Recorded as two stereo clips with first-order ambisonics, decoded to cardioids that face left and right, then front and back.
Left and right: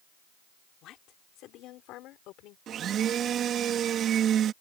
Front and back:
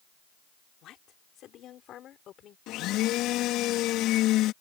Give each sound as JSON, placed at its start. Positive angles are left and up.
{"t": 0.8, "sound": "a woman speaking", "azimuth_deg": 45}
{"t": 2.7, "sound": "a blender", "azimuth_deg": -35}